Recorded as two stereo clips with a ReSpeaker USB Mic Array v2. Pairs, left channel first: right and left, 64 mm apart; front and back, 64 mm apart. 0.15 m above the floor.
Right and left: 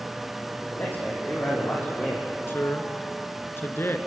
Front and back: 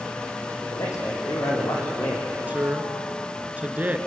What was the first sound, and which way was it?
A man speaking, 35° right.